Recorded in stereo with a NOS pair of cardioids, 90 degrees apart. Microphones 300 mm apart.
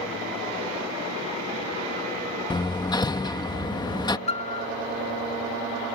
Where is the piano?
20° left.